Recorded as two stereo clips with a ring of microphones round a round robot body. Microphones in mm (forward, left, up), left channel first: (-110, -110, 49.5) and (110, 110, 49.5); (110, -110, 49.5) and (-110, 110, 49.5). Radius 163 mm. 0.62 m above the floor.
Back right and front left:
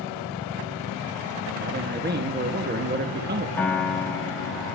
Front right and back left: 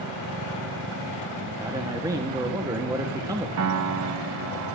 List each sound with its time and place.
1.6 s a man speaking: 65° left, 1.1 m
3.6 s a piano: 145° left, 1.1 m